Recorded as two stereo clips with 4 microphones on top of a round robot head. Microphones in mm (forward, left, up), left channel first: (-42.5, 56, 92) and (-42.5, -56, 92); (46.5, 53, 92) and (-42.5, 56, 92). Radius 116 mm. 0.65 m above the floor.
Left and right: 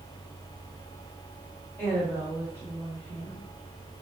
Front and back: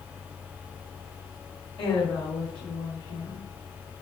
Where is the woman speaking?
25° left, 4.5 m.